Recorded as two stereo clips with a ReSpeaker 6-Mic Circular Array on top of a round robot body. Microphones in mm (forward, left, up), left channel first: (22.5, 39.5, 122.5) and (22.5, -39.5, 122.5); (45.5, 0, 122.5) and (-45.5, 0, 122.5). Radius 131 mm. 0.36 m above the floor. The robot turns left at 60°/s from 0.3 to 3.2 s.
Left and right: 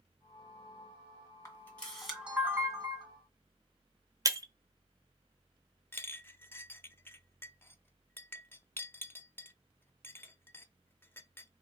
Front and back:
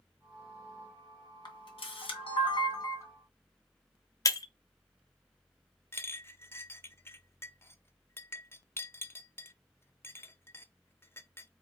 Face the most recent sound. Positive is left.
turn(degrees=45)